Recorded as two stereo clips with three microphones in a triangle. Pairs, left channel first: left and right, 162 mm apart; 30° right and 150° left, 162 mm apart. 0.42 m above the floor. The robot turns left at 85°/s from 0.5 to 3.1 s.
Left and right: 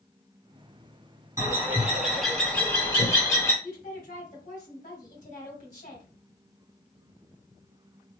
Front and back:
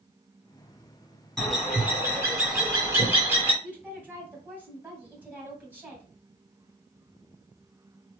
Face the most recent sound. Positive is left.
turn(degrees=70)